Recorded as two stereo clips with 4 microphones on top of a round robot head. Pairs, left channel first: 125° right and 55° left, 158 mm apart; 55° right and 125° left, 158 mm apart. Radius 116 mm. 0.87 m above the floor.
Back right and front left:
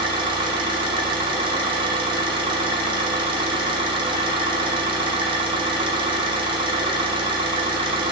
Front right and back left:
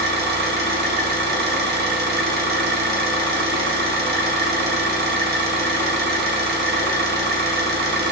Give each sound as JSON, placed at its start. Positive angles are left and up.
{"t": 0.0, "sound": "an engine running", "azimuth_deg": 110, "distance_m": 1.6}